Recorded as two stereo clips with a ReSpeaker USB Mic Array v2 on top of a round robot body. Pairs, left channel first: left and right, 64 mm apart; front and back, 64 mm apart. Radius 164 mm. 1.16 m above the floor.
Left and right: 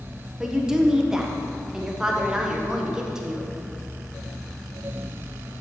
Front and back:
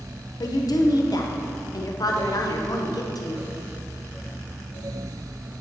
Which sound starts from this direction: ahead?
A woman speaking, at 0.4 s.